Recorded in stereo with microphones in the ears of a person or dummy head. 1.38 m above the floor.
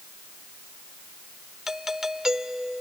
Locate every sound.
1.7 s a doorbell: 5° right (ahead or behind)